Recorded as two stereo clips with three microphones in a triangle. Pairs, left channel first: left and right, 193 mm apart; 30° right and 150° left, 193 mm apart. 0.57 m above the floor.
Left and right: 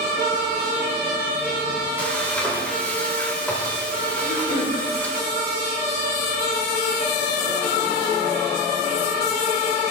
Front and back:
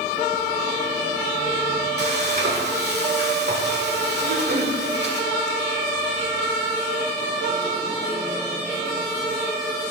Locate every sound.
2.0 s frying: 170° left, 1.7 m
4.2 s throat clearing: 125° left, 3.5 m